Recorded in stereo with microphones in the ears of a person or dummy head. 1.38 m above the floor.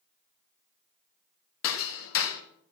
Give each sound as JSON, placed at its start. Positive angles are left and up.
{"t": 1.6, "sound": "hammering", "side_deg": 75, "distance_m": 1.4}